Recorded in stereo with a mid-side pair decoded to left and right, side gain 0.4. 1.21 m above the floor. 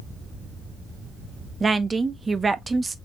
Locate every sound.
1.6 s a woman speaking: 30° right, 0.9 m